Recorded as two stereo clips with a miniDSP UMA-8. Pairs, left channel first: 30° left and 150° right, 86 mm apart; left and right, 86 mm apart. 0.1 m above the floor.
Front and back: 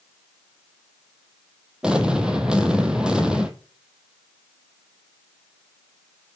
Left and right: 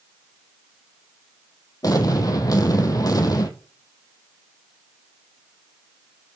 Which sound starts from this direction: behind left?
An explosion, at 1.8 s.